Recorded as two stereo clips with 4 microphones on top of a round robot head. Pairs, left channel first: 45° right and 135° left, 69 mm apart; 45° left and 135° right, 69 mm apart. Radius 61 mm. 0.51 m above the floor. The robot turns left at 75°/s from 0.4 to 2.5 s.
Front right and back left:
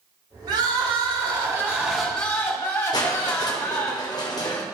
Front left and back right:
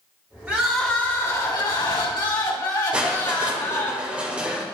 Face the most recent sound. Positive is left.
turn(degrees=-60)